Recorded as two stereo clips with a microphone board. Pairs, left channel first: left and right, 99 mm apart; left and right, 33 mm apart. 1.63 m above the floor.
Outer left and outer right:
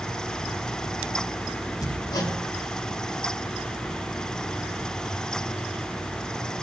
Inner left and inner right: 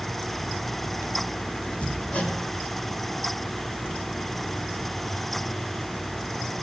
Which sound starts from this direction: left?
Hammering, at 1.8 s.